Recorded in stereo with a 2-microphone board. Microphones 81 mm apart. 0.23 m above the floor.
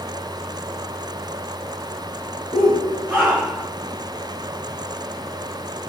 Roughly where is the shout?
Centre.